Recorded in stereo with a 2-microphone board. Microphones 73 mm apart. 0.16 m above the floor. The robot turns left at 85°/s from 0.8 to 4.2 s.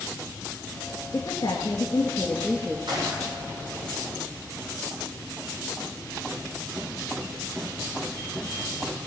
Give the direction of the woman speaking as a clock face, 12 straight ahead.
8 o'clock.